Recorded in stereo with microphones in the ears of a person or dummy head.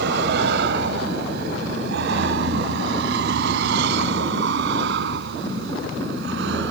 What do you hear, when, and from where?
0.0 s a vehicle: 60° right (ahead or behind); by 6.7 s 65° right (ahead or behind)